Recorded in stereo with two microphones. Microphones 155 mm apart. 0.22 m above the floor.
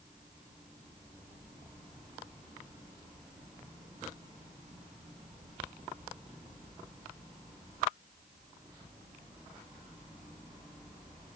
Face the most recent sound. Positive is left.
No sound to turn to.